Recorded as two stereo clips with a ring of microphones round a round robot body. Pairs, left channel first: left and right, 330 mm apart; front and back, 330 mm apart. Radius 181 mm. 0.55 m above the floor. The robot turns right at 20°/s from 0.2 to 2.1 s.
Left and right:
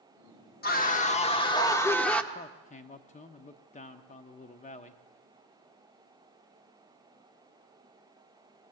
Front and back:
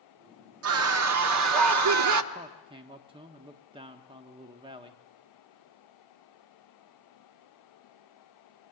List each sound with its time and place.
0.6 s a scream: 145° left, 1.1 m; by 2.2 s 175° left, 1.1 m
2.3 s a man speaking: 125° left, 0.8 m